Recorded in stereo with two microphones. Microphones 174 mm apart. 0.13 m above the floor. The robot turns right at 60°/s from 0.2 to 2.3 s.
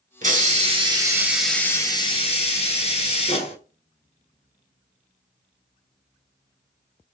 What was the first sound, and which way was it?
A hiss, 75° right.